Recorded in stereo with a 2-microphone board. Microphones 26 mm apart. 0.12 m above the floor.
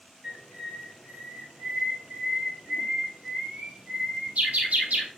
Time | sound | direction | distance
0.2 | a bird | 70° right (ahead or behind) | 2.5 m